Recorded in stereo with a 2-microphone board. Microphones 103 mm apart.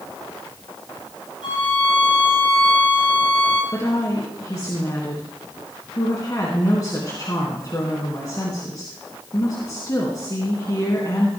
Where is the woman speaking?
35° left (ahead or behind), 3.5 m.